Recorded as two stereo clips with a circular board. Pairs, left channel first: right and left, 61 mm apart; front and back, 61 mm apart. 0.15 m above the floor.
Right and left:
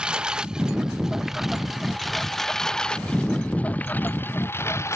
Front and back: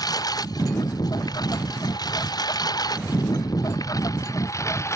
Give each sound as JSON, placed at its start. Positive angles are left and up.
{"t": 0.0, "sound": "a lawn mower", "azimuth_deg": 15}